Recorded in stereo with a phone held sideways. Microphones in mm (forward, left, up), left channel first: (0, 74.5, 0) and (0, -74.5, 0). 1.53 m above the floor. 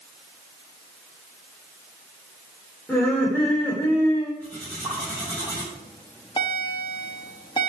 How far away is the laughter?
About 5 m.